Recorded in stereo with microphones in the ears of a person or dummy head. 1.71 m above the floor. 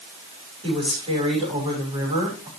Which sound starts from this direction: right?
A woman speaking, at 0.6 s.